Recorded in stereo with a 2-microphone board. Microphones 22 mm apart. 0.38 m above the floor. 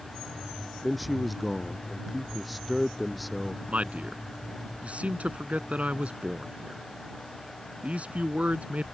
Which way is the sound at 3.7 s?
75° right (ahead or behind).